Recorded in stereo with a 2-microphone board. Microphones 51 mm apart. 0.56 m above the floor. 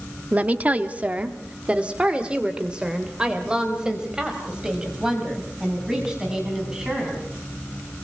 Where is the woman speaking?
30° right (ahead or behind), 1.1 m; by 7.2 s 15° right (ahead or behind), 5.5 m.